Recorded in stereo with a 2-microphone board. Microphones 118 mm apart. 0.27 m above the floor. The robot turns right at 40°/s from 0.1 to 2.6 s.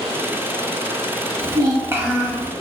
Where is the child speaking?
55° right, 1.0 m; by 2.5 s 10° right, 1.0 m.